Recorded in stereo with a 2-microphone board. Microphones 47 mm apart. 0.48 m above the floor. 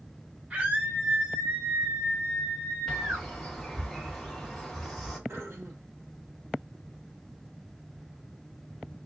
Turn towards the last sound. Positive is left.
turn(degrees=-65)  # may be behind; listen again after turning